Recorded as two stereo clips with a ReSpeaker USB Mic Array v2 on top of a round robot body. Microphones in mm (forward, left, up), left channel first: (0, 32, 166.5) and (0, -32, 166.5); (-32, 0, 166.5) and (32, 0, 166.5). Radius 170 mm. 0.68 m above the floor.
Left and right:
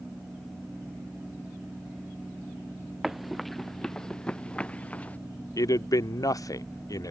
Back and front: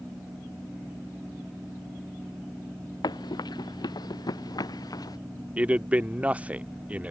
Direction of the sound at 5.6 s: 70° left.